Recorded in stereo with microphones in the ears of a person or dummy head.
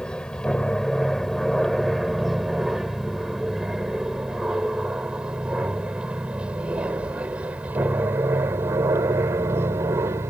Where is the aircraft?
Centre (ahead or behind); by 10.3 s 15° right (ahead or behind).